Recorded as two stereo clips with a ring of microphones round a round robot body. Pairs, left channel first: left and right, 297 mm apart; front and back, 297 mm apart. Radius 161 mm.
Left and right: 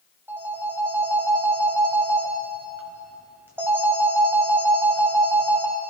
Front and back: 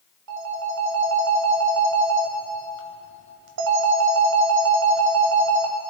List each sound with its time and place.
0.3 s a phone ringing: 175° right, 1.5 m